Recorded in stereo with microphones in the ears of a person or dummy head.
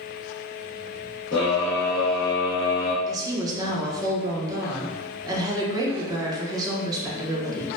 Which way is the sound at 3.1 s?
20° right (ahead or behind).